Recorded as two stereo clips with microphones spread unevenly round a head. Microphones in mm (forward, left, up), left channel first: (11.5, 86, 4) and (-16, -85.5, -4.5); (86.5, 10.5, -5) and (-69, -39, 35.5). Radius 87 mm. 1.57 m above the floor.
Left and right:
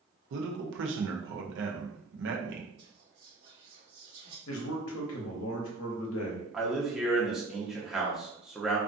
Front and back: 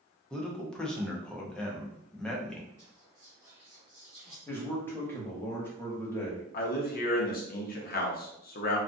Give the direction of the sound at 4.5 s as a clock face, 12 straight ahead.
9 o'clock.